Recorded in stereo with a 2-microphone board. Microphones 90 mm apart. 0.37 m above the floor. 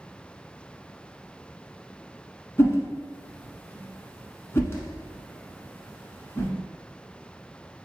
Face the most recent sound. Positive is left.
turn(degrees=25)  # may be behind; listen again after turning